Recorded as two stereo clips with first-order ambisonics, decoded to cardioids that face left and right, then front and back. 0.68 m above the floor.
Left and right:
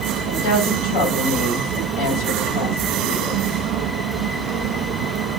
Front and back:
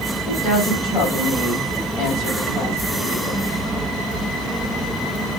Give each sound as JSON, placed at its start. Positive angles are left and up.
{"t": 0.2, "sound": "a woman speaking", "azimuth_deg": 80, "distance_m": 3.0}